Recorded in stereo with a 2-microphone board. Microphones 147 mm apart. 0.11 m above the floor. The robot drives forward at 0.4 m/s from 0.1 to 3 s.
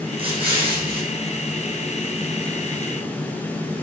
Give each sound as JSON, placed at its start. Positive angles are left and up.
{"t": 0.2, "sound": "an explosion", "side_deg": -35, "distance_m": 6.0}